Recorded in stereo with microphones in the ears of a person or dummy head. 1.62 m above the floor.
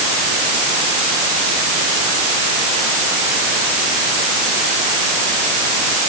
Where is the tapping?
I don't hear tapping.